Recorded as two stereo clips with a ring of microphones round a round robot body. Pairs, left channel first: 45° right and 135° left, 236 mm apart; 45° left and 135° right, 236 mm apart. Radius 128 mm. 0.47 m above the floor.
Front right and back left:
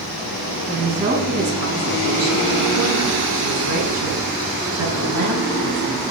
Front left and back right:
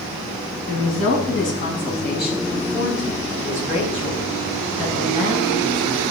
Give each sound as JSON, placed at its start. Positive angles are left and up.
{"t": 0.7, "sound": "a woman speaking", "azimuth_deg": 75, "distance_m": 5.0}